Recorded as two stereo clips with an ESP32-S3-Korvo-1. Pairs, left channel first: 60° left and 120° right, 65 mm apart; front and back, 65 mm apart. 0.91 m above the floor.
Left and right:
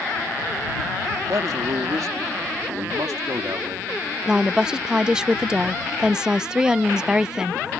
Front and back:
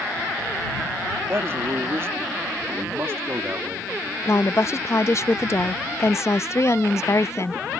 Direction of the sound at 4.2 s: 45° right.